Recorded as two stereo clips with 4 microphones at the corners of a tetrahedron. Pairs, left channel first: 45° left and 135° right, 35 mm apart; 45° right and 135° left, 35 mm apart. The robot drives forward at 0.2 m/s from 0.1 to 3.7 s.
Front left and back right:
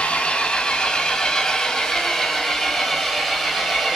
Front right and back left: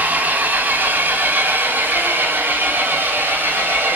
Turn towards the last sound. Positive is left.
turn(degrees=135)